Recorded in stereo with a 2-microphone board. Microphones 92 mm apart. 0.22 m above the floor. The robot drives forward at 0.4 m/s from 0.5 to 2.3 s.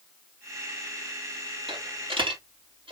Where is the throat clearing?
No throat clearing in this recording.